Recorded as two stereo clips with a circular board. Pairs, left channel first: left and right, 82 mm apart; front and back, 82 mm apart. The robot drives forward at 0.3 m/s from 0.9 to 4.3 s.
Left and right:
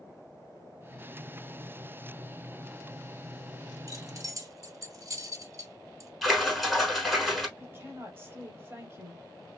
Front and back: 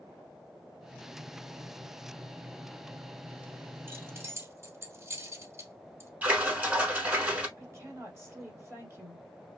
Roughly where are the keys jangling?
Behind right.